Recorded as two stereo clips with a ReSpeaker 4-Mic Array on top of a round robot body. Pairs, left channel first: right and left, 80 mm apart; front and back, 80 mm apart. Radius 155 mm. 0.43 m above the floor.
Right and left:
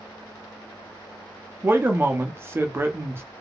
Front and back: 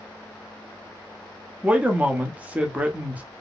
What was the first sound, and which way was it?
A man speaking, 120° left.